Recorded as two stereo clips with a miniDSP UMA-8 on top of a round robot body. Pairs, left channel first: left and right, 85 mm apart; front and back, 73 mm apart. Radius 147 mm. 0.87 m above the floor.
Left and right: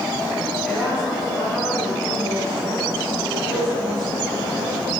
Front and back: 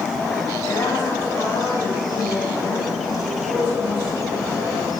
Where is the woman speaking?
15° left, 5.5 m; by 4.9 s 45° left, 6 m.